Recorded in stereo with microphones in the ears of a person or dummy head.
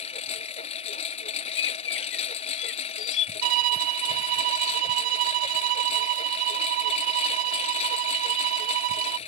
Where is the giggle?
I don't hear a giggle.